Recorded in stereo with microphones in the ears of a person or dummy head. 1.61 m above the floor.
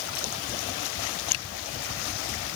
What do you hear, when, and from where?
Only background noise.